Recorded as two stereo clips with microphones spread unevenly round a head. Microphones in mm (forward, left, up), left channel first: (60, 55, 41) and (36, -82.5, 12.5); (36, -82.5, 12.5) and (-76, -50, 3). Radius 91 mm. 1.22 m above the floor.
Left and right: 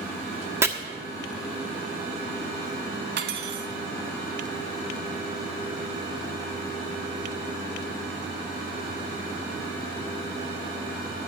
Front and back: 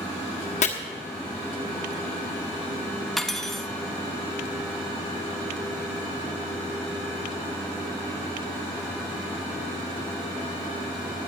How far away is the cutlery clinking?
About 0.9 m.